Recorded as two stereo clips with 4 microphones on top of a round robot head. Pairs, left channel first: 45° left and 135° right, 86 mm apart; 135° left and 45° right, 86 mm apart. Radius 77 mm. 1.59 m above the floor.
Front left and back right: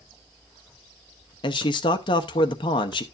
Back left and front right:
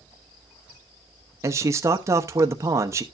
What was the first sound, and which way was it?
A man speaking, 15° left.